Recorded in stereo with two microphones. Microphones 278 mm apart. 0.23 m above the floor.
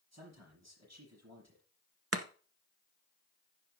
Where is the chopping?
60° right (ahead or behind), 0.9 m.